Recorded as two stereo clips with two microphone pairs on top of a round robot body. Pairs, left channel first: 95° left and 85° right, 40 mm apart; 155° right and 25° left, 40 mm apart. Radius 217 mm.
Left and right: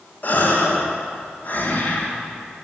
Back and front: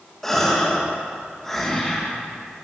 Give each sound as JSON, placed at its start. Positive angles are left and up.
{"t": 0.2, "sound": "a gasp", "azimuth_deg": 125, "distance_m": 1.5}